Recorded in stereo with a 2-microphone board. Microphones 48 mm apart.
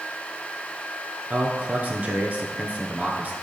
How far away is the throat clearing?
No throat clearing in this recording.